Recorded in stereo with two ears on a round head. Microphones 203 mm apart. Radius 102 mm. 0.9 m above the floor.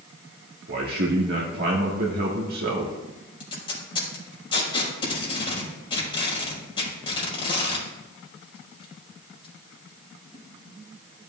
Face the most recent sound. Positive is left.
turn(degrees=25)  # may be behind; listen again after turning